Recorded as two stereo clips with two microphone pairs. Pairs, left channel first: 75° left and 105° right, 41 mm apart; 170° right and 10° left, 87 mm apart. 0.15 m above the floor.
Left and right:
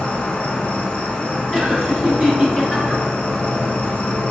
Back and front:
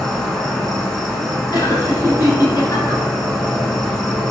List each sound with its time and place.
0.0 s an insect: 110° left, 0.9 m
1.5 s laughter: 165° left, 1.7 m